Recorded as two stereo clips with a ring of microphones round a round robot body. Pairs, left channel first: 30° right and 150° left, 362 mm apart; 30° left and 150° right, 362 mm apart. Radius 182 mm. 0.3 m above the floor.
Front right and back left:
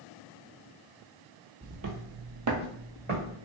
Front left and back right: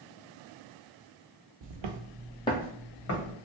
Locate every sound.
1.6 s footsteps: 140° right, 0.9 m; by 3.4 s 80° left, 1.8 m